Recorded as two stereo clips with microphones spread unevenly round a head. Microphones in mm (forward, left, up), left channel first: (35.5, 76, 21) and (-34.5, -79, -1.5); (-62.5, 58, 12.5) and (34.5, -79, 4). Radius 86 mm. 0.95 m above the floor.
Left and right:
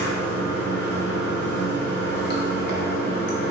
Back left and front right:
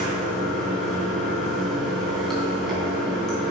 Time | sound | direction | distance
0.0 | running water | 35° left | 3.5 m